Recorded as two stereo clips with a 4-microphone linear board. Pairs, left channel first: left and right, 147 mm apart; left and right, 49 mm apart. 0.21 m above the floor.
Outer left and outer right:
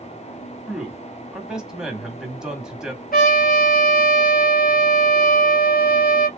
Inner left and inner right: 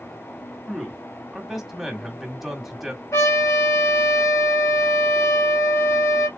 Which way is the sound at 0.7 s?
5° right (ahead or behind).